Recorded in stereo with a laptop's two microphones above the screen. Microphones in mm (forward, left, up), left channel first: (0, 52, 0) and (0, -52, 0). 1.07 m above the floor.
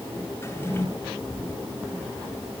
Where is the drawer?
25° left (ahead or behind), 1.9 m.